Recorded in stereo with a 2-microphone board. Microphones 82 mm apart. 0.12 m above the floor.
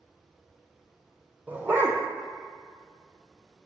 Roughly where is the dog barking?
Right.